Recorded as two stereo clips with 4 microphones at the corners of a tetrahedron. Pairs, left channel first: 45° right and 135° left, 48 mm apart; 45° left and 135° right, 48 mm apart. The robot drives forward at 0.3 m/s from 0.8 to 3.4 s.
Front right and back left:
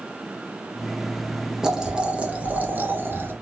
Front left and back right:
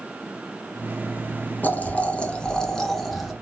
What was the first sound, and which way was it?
Boiling, 60° left.